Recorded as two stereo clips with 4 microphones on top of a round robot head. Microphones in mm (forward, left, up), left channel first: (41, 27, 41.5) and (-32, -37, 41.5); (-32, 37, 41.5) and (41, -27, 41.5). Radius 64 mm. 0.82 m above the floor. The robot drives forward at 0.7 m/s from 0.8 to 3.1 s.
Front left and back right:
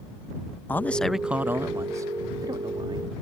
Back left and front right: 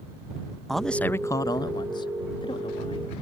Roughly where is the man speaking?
Ahead left.